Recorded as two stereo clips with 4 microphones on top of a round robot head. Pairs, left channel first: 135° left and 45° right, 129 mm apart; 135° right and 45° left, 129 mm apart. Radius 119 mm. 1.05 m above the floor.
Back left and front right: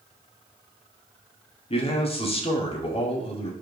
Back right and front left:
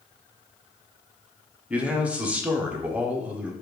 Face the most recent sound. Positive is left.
turn(degrees=125)